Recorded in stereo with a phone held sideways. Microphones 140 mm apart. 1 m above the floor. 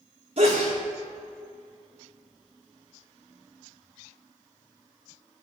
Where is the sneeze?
50° right (ahead or behind), 1.7 m.